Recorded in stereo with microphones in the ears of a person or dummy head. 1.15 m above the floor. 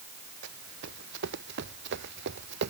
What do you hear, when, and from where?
0.4 s running footsteps: 65° right (ahead or behind); by 2.7 s 60° right (ahead or behind)